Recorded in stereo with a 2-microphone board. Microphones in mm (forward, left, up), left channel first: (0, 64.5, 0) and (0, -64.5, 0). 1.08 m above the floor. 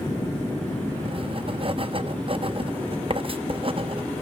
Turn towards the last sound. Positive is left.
turn(degrees=-45)  # may be behind; listen again after turning